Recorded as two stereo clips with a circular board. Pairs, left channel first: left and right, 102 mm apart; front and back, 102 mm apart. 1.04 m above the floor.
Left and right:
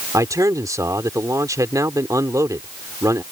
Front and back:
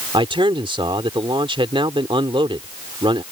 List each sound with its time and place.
0.1 s a man speaking: 145° right